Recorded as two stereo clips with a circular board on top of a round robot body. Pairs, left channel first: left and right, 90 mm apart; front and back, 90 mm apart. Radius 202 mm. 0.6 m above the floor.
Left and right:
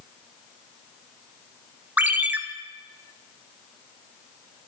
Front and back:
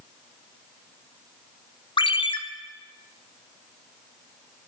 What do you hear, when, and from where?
2.0 s a ringtone: 20° right, 0.9 m